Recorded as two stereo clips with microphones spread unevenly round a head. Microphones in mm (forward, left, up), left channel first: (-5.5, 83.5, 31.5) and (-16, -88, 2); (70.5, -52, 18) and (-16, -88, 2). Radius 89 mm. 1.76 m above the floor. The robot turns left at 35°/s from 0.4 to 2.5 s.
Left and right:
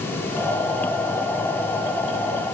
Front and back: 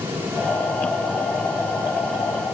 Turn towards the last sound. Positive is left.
No sound to turn to.